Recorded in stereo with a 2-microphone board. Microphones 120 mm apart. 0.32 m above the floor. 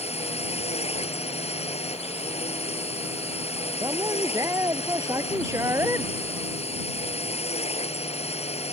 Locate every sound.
0.0 s a drone: 60° left (ahead or behind)
3.8 s a man speaking: 25° right (ahead or behind)